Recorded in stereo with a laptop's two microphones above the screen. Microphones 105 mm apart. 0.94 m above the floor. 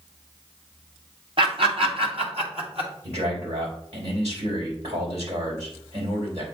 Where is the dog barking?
I don't hear a dog barking.